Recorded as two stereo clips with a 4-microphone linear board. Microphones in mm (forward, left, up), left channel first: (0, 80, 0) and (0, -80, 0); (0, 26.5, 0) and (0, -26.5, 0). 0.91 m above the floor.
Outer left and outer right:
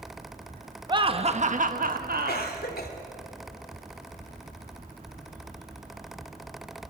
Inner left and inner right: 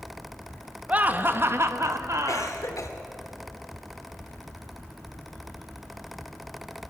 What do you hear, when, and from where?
0.9 s laughter: 30° right (ahead or behind), 1.3 m; by 2.6 s 65° right (ahead or behind), 1.7 m
2.3 s a cough: 80° left, 3 m